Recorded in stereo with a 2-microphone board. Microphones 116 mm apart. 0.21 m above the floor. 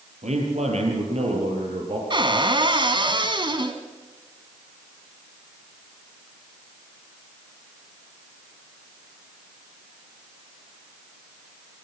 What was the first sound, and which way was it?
A man speaking, 75° right (ahead or behind).